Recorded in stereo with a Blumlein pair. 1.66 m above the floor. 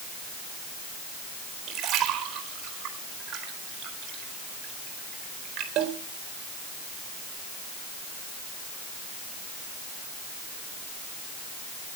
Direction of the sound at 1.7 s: 35° right.